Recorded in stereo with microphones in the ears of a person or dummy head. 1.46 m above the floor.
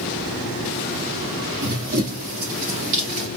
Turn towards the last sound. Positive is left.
turn(degrees=-30)  # may be behind; listen again after turning